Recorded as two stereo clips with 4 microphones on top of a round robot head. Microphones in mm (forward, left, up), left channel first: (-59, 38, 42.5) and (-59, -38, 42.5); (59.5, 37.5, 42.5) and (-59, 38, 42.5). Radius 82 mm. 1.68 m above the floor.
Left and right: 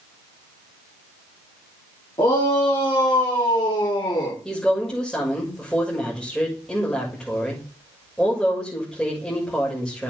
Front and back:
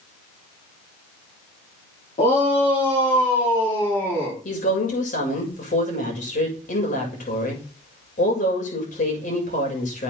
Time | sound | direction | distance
2.2 | a shout | 35° left | 3.5 m
4.5 | a woman speaking | 5° left | 6.5 m